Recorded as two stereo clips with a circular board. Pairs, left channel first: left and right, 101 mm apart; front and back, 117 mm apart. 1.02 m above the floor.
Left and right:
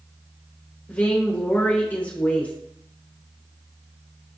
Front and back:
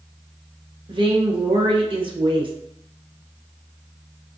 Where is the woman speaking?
160° left, 0.8 m.